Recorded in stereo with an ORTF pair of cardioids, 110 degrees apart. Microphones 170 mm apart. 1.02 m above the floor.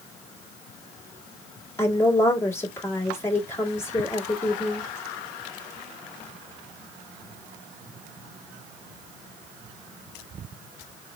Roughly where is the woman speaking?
Ahead.